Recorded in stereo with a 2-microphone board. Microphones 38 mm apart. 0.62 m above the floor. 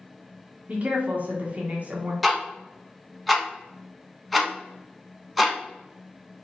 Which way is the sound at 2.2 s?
Centre (ahead or behind).